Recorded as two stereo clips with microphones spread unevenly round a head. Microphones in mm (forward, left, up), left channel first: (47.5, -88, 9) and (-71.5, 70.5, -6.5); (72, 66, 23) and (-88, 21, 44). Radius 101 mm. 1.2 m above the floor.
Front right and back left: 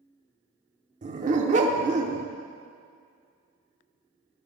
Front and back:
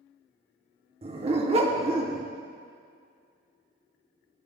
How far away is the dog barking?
About 0.9 m.